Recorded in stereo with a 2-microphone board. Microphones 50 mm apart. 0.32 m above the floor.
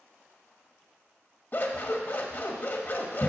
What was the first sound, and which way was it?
Scissors, 40° left (ahead or behind).